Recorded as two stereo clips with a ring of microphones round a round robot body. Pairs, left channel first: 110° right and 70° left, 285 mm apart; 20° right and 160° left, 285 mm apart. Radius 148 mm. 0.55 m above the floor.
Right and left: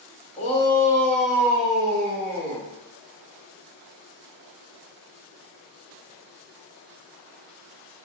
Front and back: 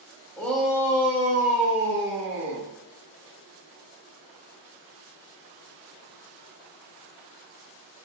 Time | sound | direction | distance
0.4 | a shout | 95° right | 0.8 m